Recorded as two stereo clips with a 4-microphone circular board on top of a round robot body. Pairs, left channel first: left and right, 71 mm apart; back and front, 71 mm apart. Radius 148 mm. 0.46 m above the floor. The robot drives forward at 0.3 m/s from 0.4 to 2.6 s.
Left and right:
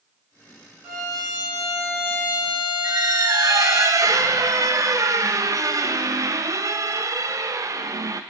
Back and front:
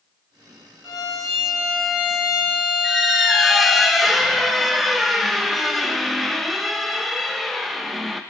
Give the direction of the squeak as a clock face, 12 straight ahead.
3 o'clock.